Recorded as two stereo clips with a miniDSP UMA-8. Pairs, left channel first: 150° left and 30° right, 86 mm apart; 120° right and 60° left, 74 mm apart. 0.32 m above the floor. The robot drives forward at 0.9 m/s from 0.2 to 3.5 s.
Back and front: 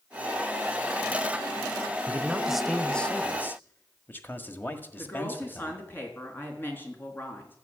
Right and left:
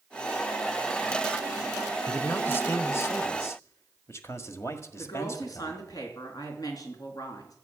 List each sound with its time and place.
2.1 s a man speaking: 70° right, 1.2 m; by 5.8 s 150° right, 1.6 m
5.0 s a woman speaking: 145° right, 4 m